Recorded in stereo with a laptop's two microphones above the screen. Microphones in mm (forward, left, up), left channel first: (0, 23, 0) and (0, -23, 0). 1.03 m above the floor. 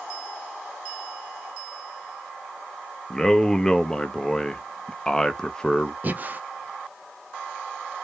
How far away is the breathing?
About 0.5 m.